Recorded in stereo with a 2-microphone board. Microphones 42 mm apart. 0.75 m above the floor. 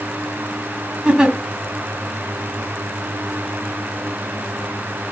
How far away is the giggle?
About 2.5 m.